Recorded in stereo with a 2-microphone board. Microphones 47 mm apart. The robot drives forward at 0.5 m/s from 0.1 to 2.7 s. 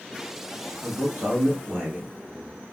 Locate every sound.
0.8 s a man speaking: 55° right (ahead or behind), 0.9 m; by 2.1 s 30° right (ahead or behind), 1.4 m